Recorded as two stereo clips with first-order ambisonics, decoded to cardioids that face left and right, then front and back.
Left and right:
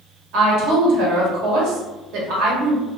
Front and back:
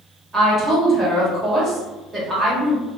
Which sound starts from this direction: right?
A woman speaking, at 0.3 s.